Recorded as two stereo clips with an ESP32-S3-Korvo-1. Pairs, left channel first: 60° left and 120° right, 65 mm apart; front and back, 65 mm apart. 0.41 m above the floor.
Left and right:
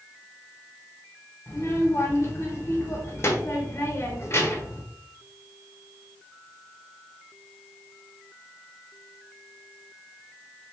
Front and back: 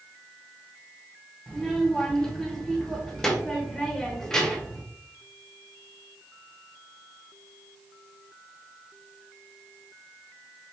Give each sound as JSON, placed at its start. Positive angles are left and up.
{"t": 1.5, "sound": "a child speaking", "azimuth_deg": 75, "distance_m": 1.1}